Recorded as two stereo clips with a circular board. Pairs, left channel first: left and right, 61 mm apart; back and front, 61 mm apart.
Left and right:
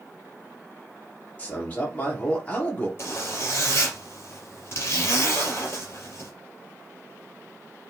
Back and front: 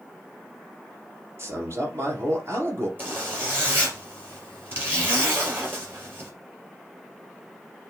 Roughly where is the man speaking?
Ahead left.